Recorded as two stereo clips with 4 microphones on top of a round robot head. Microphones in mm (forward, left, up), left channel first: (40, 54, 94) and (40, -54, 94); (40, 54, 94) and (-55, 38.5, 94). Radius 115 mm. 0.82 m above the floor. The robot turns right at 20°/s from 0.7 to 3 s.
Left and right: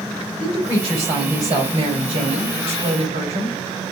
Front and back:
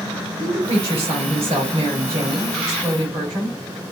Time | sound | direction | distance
0.4 | a woman speaking | 165° right | 4 m